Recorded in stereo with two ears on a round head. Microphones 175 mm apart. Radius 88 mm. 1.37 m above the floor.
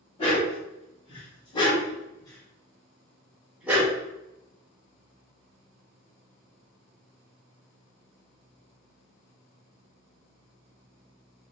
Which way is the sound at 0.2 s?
30° left (ahead or behind).